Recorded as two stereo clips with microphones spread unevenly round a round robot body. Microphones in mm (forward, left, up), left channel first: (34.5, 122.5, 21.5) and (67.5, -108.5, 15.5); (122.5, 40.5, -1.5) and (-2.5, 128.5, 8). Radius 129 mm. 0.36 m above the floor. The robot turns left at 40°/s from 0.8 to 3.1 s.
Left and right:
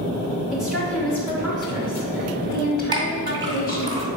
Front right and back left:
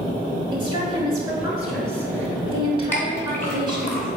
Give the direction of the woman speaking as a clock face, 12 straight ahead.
6 o'clock.